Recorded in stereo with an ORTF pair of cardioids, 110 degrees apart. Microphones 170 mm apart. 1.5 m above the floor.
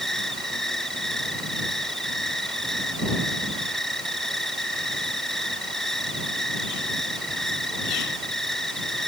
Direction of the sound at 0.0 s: Straight ahead.